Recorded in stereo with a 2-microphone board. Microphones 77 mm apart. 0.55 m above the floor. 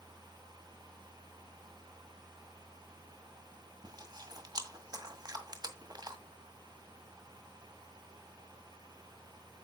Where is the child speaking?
I don't hear a child speaking.